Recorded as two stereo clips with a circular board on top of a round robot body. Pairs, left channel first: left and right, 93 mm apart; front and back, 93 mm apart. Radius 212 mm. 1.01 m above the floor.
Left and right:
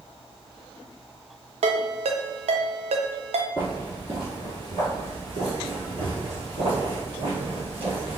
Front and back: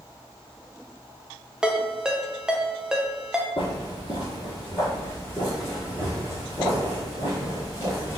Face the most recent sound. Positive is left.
turn(degrees=-110)